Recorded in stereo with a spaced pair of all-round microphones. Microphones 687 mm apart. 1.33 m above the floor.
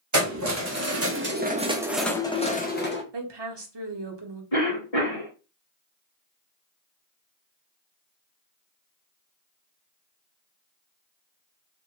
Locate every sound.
0.1 s keys jangling: 25° right (ahead or behind), 1.0 m; by 3.0 s 15° left (ahead or behind), 0.8 m
3.1 s a woman speaking: 40° right (ahead or behind), 0.8 m
4.5 s a cough: 55° left (ahead or behind), 1.9 m